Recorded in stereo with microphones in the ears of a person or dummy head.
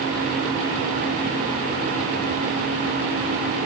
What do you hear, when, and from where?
Only background noise.